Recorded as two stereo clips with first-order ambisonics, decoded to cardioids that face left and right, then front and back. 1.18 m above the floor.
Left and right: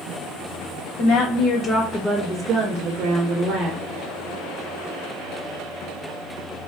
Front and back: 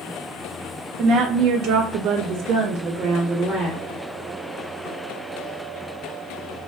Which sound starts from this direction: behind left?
A woman speaking, at 1.0 s.